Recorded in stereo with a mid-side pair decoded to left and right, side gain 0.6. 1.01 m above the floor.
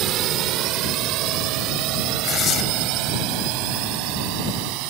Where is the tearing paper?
45° left.